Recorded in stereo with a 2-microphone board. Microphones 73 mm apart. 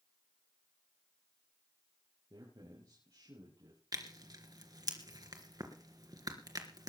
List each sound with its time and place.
2.3 s a man speaking: 60° right (ahead or behind), 6 m; by 3.8 s 65° right (ahead or behind), 7 m
3.9 s tearing paper: 60° right (ahead or behind), 3 m